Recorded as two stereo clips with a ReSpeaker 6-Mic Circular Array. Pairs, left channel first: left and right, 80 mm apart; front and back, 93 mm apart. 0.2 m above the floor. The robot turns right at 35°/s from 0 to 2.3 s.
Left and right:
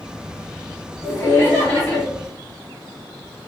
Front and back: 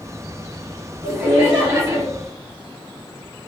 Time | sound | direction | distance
1.0 | laughter | 125° left | 2.0 m